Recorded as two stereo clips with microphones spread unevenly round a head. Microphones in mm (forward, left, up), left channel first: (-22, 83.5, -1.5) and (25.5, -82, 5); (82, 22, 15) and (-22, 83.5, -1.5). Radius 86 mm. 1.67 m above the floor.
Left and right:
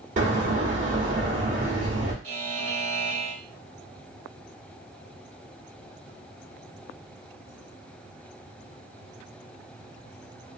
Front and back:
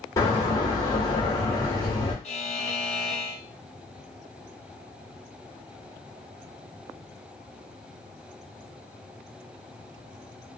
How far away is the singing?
I don't hear singing.